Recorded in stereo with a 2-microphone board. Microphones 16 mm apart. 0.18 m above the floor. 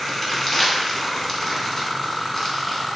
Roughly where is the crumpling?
Left.